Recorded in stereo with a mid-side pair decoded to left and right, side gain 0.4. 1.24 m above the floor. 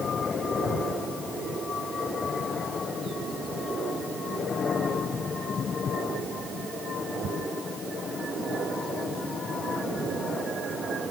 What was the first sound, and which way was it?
Only background noise.